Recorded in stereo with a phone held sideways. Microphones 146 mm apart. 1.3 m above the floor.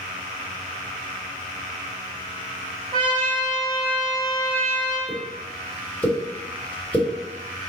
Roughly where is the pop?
Centre.